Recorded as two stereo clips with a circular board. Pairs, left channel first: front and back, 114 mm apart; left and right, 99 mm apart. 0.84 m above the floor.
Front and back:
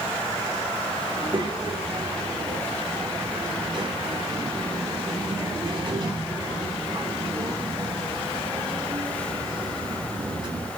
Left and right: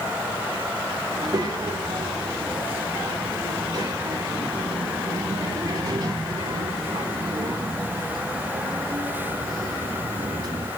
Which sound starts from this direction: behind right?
A child speaking, at 1.1 s.